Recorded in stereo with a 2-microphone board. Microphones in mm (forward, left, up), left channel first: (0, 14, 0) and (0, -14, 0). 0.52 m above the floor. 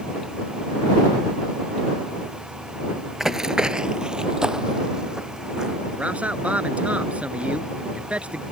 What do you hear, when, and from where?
3.2 s running footsteps: 15° right (ahead or behind); by 5.8 s 25° right (ahead or behind)
6.0 s a man speaking: 65° right (ahead or behind)